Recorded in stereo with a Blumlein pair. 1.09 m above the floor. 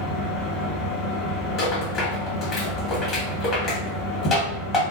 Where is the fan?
25° left, 1.2 m.